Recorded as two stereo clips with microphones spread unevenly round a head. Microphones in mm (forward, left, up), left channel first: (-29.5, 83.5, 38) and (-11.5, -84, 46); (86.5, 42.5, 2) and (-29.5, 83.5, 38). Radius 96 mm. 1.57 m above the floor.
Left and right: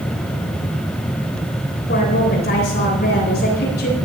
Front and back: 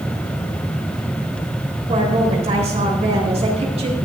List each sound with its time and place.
1.9 s a woman speaking: 125° left, 9 m